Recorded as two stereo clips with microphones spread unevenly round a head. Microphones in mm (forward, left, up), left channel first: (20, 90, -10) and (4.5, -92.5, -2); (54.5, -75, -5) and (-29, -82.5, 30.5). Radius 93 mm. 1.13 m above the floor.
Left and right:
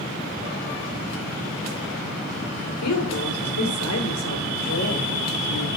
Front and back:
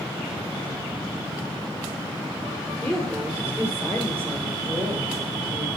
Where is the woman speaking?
90° left, 4 m; by 5.7 s 115° left, 5 m.